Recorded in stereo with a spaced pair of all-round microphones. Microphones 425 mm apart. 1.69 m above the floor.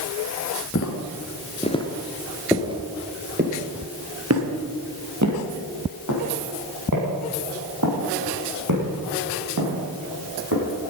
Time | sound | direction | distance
0.8 | footsteps | 30° left (ahead or behind) | 2 m